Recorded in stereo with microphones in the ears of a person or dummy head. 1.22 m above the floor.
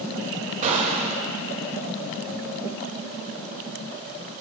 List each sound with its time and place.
0.6 s a gunshot: 40° right (ahead or behind), 1.8 m